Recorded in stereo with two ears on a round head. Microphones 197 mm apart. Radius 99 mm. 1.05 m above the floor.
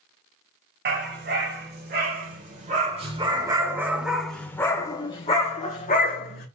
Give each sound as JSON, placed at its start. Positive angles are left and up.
{"t": 0.8, "sound": "a dog barking", "side_deg": -55, "distance_m": 2.0}